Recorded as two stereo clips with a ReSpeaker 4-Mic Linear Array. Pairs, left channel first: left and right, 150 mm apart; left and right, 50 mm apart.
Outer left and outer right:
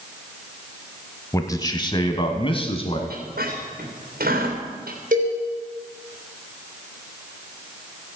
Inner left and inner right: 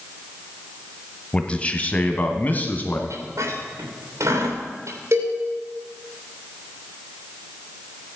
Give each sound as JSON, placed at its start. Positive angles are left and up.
{"t": 1.3, "sound": "a man speaking", "side_deg": 20, "distance_m": 1.1}
{"t": 3.1, "sound": "a squeak", "side_deg": -85, "distance_m": 3.5}
{"t": 5.1, "sound": "a cowbell", "side_deg": -70, "distance_m": 4.0}